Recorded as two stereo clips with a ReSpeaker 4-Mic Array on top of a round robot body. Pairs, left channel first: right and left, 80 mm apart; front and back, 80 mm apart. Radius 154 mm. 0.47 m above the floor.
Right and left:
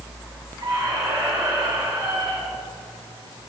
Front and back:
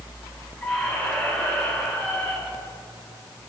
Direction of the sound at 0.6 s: 80° left.